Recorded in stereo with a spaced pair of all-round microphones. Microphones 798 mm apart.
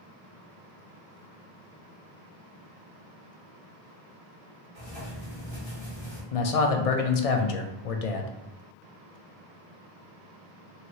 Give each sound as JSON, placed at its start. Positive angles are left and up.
{"t": 4.8, "sound": "writing", "side_deg": 45, "distance_m": 1.7}
{"t": 6.3, "sound": "a man speaking", "side_deg": 55, "distance_m": 0.5}